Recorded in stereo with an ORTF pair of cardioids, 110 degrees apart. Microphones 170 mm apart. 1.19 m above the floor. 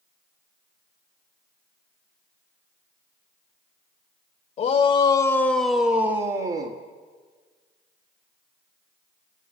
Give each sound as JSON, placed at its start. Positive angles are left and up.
{"t": 4.6, "sound": "a shout", "azimuth_deg": 45, "distance_m": 2.5}